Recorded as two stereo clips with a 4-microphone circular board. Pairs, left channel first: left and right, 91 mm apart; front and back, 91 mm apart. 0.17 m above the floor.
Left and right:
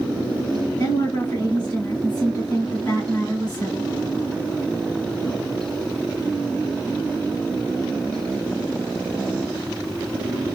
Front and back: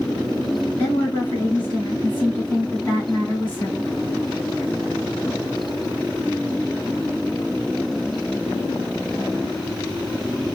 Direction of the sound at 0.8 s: 65° left.